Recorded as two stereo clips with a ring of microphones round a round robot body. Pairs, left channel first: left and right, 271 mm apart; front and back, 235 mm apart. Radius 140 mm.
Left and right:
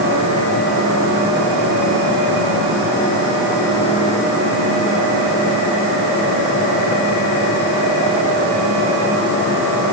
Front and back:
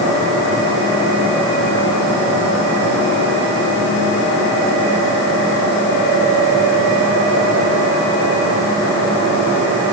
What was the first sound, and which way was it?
Only background noise.